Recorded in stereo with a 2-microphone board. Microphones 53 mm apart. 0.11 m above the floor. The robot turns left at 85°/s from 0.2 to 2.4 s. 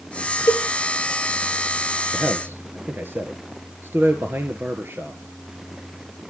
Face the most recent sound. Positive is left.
turn(degrees=-45)  # may be behind; listen again after turning